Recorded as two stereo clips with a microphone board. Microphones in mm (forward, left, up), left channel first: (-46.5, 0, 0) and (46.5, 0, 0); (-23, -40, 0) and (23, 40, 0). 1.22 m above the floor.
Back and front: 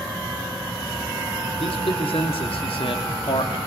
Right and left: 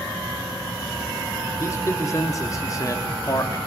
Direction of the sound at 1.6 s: Straight behind.